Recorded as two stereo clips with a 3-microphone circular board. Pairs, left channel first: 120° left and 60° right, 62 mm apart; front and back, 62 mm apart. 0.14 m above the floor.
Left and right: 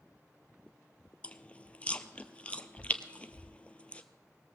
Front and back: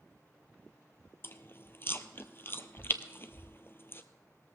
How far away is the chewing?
About 0.7 m.